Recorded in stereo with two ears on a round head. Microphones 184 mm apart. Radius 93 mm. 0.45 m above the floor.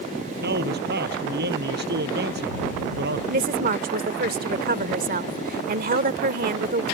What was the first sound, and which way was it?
A man speaking, 55° right (ahead or behind).